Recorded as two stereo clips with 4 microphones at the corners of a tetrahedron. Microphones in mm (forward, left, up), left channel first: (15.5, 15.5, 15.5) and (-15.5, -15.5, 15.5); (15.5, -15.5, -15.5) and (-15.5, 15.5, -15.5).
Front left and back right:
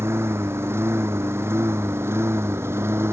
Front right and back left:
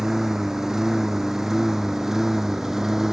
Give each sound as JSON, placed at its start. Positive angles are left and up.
{"t": 0.0, "sound": "a lawn mower", "azimuth_deg": -145}